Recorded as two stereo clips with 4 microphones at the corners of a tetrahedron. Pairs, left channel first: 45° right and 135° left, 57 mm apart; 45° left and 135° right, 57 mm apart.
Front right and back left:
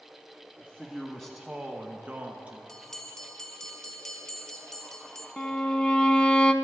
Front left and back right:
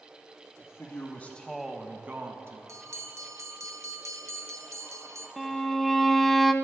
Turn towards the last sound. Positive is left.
turn(degrees=-45)